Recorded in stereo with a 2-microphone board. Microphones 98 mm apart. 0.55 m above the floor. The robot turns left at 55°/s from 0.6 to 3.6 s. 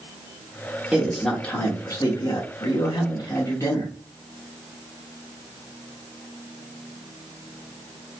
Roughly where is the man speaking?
Behind.